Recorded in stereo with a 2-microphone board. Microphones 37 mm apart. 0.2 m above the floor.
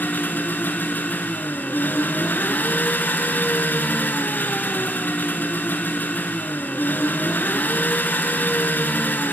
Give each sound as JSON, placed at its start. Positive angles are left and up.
{"t": 0.0, "sound": "an engine running", "side_deg": 65, "distance_m": 2.0}